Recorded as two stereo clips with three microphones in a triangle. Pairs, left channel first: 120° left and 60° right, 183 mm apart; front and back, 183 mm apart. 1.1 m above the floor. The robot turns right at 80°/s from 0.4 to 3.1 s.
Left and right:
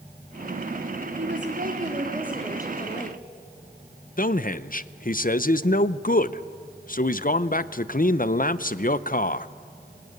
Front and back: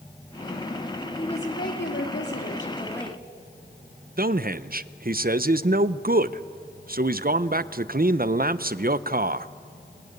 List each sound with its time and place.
1.2 s a woman speaking: 65° right, 3 m; by 3.2 s 90° left, 3 m
4.2 s a man speaking: 150° left, 0.6 m